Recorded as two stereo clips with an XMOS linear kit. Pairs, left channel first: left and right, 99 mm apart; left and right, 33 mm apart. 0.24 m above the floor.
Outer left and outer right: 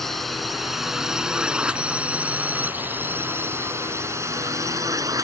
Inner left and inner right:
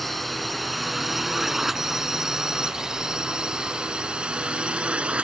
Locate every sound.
0.0 s a drone: centre (ahead or behind); by 5.2 s 35° right (ahead or behind)